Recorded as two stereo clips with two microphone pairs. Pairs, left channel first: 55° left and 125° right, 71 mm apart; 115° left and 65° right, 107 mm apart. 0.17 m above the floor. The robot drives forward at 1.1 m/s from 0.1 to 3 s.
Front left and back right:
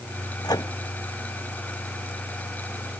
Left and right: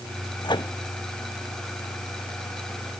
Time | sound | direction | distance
0.4 | a microwave | 70° left | ?